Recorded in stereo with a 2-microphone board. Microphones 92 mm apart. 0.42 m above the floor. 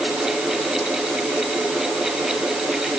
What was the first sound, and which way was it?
Only background noise.